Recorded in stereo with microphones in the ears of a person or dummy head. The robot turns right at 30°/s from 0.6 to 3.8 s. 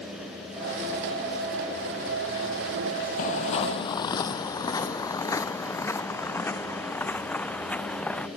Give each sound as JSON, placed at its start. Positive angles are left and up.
{"t": 3.2, "sound": "footsteps", "side_deg": 40}